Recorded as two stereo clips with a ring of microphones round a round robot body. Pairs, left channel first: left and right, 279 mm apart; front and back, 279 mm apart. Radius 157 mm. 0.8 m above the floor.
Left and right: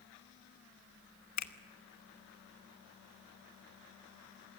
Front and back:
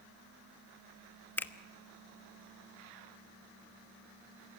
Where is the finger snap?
85° left, 1.2 m.